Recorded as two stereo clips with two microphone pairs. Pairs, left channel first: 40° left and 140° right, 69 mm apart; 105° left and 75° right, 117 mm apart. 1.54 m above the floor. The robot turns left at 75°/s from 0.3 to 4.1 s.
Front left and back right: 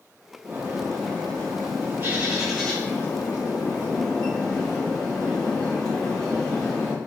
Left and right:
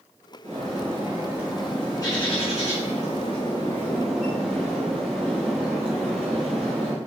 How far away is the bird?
About 2.5 m.